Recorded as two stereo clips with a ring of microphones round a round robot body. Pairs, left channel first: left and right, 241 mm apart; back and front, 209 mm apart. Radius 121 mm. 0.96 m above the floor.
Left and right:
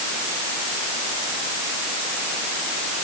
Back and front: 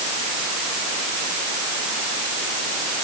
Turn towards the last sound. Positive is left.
No sound to turn to.